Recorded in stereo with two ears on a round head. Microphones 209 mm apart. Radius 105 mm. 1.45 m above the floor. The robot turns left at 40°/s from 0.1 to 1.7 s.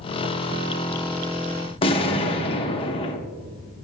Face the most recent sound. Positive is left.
turn(degrees=25)  # may be behind; listen again after turning